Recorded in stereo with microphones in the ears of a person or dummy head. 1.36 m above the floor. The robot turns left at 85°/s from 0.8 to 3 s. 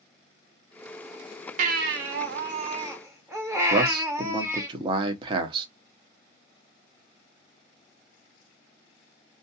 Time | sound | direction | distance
1.6 | a baby crying | 45° right | 0.8 m
3.7 | a man speaking | 25° right (ahead or behind) | 0.7 m